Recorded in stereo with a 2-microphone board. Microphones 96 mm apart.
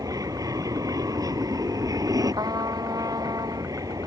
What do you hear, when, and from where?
0.0 s an aircraft: 35° right (ahead or behind)
2.4 s a trumpet: 40° right (ahead or behind)